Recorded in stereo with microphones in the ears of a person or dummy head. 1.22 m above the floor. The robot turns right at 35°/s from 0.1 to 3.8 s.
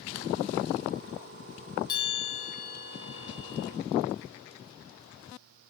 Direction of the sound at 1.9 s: 30° left.